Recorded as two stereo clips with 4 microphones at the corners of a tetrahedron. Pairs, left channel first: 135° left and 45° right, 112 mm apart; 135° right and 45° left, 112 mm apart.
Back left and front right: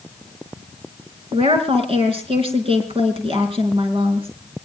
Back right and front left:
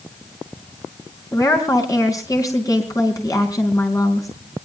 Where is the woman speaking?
75° right, 4.5 m.